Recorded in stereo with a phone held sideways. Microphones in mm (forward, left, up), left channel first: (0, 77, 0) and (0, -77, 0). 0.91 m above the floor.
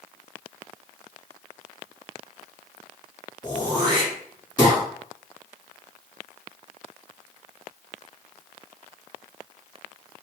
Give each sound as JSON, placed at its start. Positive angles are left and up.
{"t": 3.4, "sound": "throat clearing", "side_deg": 25, "distance_m": 2.5}